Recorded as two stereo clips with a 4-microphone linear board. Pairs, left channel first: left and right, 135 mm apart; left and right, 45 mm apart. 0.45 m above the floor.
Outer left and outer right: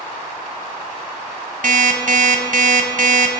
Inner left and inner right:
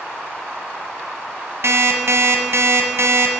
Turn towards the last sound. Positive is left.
turn(degrees=-65)  # may be behind; listen again after turning